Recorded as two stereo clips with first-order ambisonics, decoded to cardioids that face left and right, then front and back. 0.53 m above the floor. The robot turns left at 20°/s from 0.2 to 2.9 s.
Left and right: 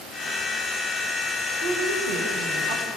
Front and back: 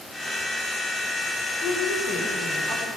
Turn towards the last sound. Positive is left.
turn(degrees=-95)